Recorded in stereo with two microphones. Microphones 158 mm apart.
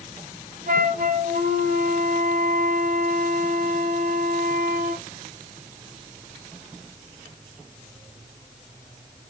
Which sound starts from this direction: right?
A flute, at 0.7 s.